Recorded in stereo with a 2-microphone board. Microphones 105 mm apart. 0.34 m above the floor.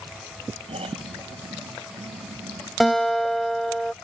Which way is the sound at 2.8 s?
Centre (ahead or behind).